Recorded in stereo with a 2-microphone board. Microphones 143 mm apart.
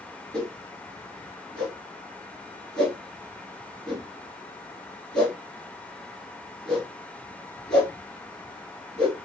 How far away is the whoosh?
About 1.5 m.